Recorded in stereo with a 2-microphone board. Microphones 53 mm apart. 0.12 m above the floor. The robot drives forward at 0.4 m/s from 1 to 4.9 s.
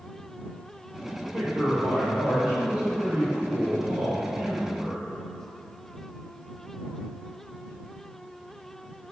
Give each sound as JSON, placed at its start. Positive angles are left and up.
{"t": 1.3, "sound": "a man speaking", "side_deg": -10, "distance_m": 1.9}